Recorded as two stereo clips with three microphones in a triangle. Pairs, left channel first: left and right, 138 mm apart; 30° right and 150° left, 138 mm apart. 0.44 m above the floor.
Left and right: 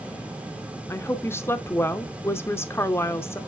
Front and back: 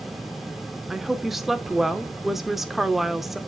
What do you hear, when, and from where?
0.9 s a woman speaking: 65° left, 0.7 m